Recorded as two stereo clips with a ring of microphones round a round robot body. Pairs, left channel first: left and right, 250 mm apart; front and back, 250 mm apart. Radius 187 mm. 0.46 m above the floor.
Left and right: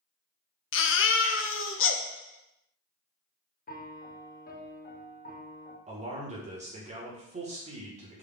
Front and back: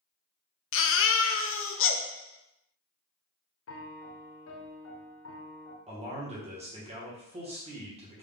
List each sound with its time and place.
0.7 s a baby crying: 45° left, 0.6 m
3.7 s a piano: 30° left, 0.7 m
5.9 s a man speaking: 130° right, 1.0 m